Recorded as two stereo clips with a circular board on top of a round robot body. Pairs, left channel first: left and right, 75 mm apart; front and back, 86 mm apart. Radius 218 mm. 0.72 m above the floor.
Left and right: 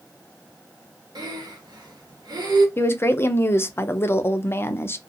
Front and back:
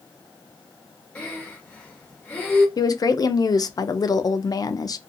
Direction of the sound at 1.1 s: 75° right.